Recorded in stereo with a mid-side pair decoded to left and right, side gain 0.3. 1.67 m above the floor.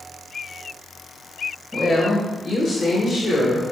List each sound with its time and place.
1.7 s a woman speaking: 45° left, 1.6 m; by 3.6 s 80° left, 1.9 m